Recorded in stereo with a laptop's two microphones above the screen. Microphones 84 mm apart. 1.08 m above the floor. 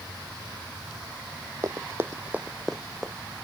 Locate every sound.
1.6 s running footsteps: 40° right (ahead or behind); by 3.1 s centre (ahead or behind)